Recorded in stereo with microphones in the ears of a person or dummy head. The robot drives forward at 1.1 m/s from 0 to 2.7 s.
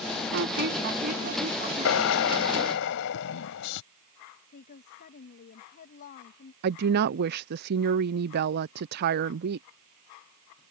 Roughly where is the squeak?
Right.